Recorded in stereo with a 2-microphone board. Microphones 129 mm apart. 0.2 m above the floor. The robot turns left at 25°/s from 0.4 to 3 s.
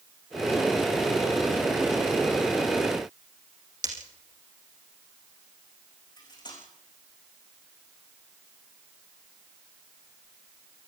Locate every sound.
3.8 s breaking glass: 70° right (ahead or behind), 6 m
6.2 s cutlery clinking: 35° left (ahead or behind), 8 m